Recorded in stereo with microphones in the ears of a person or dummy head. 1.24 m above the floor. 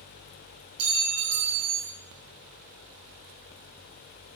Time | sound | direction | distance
0.8 | a clink | 35° right (ahead or behind) | 1.2 m